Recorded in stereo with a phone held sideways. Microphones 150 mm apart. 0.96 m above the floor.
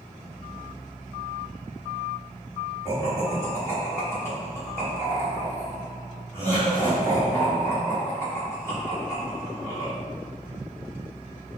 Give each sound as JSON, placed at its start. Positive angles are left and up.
{"t": 2.9, "sound": "laughter", "side_deg": 20, "distance_m": 1.8}